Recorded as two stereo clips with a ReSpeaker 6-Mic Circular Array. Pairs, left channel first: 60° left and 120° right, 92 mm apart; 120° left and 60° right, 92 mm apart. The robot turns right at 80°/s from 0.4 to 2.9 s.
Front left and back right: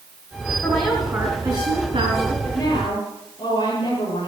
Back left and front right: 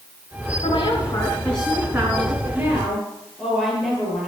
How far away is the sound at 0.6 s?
About 4 m.